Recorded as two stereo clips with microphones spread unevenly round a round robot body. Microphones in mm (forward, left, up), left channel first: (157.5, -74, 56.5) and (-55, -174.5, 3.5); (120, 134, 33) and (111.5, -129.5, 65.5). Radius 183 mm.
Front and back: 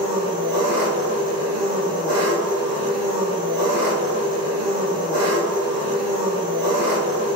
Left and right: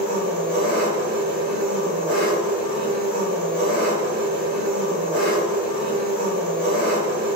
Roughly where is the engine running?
Right.